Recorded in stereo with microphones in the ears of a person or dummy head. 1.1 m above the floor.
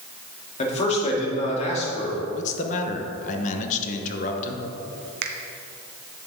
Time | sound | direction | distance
0.6 | a man speaking | 40° left (ahead or behind) | 3 m
2.3 | a man speaking | 40° left (ahead or behind) | 1.2 m
5.2 | a finger snap | 50° right (ahead or behind) | 0.7 m